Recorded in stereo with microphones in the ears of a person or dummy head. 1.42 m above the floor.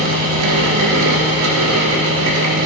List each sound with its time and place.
0.0 s a fan: 75° right (ahead or behind), 1.7 m